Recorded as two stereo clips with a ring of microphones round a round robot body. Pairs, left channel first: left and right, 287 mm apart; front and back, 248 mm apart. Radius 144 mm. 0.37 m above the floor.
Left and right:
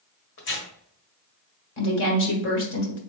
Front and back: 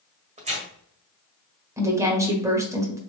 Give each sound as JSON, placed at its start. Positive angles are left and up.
{"t": 0.4, "sound": "tearing paper", "azimuth_deg": 125, "distance_m": 1.5}
{"t": 1.8, "sound": "a woman speaking", "azimuth_deg": 105, "distance_m": 1.5}